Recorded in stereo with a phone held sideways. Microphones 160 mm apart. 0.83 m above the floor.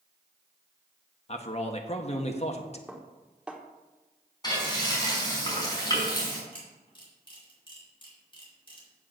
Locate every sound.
1.3 s a man speaking: 40° left (ahead or behind), 1.1 m
2.9 s dishes clattering: 5° right (ahead or behind), 1.1 m
4.4 s frying: 25° left (ahead or behind), 4 m
6.5 s a camera shutter: 30° left (ahead or behind), 3.5 m